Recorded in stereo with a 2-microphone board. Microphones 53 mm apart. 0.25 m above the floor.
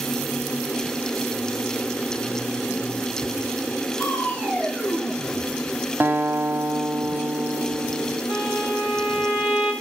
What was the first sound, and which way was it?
Crushing, 30° left (ahead or behind).